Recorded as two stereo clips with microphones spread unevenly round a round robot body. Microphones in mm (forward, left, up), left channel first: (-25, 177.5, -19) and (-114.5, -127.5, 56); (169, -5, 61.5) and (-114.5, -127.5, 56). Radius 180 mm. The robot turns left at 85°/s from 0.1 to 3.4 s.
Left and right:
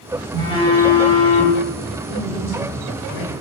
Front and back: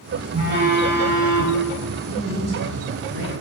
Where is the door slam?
No door slam in this recording.